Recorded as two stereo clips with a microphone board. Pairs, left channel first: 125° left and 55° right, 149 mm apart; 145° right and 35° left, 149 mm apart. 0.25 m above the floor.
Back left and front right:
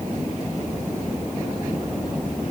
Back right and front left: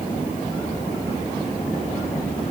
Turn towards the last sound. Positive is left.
No sound to turn to.